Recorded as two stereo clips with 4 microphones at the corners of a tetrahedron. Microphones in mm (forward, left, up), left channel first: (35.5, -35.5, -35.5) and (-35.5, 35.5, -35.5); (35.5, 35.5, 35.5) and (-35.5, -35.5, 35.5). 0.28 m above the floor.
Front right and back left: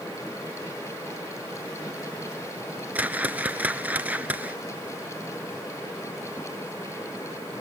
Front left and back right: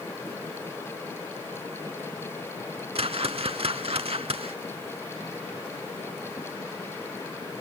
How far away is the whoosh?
About 0.8 m.